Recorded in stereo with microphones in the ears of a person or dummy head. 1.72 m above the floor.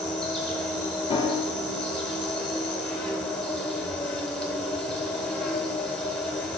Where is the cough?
I don't hear a cough.